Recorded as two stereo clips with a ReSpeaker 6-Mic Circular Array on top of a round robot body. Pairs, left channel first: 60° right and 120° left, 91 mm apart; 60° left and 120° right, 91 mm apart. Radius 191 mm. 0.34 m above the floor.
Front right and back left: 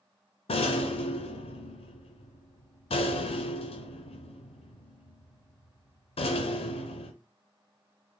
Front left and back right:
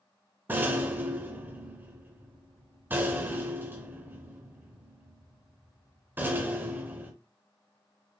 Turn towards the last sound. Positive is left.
turn(degrees=-50)